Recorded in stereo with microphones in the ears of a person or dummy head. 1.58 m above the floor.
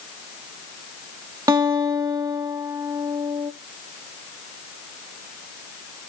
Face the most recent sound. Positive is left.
turn(degrees=-20)  # may be behind; listen again after turning